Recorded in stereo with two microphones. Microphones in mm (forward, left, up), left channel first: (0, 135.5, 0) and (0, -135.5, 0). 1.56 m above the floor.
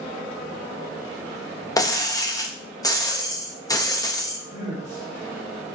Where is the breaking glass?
15° left (ahead or behind), 0.9 m.